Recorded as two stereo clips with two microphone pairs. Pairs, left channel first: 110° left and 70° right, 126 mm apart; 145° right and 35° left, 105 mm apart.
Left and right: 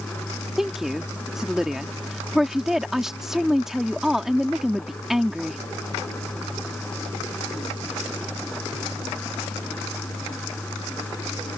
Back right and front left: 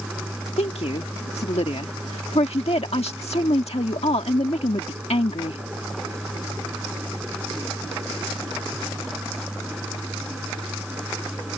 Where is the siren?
I don't hear a siren.